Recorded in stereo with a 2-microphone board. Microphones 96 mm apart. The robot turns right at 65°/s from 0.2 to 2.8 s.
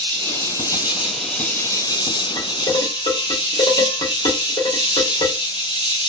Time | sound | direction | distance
0.0 | an insect | 60° right | 0.8 m
2.4 | dishes clattering | 65° left (ahead or behind) | 1.6 m